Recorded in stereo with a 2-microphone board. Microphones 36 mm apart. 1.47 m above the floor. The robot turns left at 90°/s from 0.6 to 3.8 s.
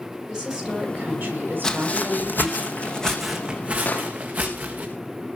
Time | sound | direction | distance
0.3 | a woman speaking | 15° right | 9 m
1.6 | footsteps | 20° left (ahead or behind) | 2 m
3.9 | an explosion | 50° left (ahead or behind) | 3 m